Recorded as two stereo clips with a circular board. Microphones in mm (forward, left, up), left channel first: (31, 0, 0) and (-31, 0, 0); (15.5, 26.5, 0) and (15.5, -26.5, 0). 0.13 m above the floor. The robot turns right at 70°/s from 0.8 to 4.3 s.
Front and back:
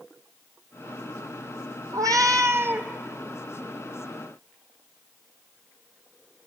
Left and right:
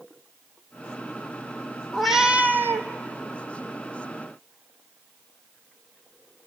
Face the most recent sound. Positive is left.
turn(degrees=-20)